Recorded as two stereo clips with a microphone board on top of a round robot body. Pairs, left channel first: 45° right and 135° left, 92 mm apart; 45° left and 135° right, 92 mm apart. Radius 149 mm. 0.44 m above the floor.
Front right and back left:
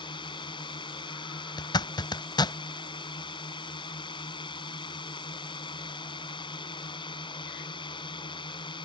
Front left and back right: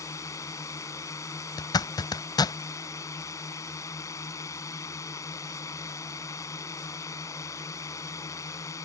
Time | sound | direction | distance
0.0 | a drone | 10° right | ?
1.6 | a zipper | straight ahead | ?